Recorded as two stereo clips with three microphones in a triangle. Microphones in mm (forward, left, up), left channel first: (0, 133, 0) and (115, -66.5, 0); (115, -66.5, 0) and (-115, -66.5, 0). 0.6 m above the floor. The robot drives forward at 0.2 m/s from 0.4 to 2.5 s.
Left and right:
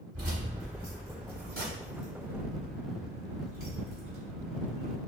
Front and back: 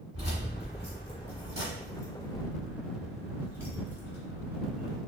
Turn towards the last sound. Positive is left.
turn(degrees=-80)